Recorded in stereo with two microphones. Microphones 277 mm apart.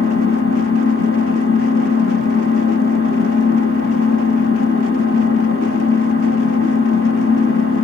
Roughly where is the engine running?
Left.